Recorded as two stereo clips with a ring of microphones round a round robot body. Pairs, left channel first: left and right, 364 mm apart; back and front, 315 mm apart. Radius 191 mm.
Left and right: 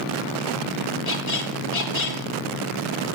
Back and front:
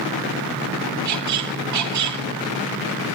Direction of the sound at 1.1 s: 35° left.